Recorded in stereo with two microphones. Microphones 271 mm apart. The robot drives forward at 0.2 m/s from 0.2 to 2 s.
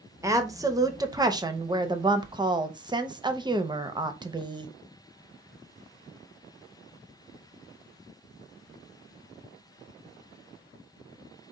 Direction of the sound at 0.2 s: 10° right (ahead or behind).